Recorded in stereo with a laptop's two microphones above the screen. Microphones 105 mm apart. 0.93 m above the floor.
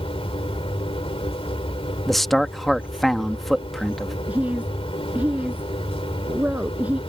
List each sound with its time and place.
0.0 s a machine running: 65° left (ahead or behind)
2.1 s a man speaking: centre (ahead or behind)
4.3 s a woman speaking: 15° right (ahead or behind)